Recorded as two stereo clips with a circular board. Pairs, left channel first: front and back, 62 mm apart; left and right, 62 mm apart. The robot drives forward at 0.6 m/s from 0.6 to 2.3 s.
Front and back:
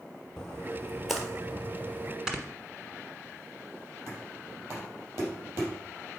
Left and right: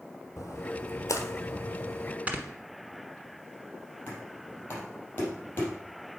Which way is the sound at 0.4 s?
80° left.